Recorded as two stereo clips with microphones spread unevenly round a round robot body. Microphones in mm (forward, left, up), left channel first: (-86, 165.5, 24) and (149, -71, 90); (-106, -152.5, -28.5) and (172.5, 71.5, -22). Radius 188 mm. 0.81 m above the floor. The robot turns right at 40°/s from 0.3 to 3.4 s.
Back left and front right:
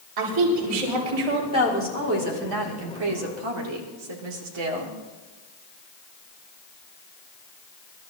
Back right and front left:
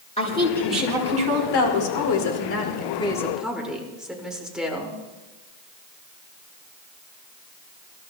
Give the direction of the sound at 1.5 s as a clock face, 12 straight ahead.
4 o'clock.